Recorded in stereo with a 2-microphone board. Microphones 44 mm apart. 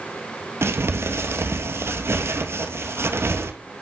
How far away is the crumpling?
About 1.2 m.